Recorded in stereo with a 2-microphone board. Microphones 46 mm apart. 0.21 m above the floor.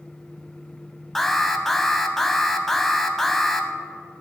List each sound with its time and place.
1.1 s an alarm: 5° left (ahead or behind), 1.0 m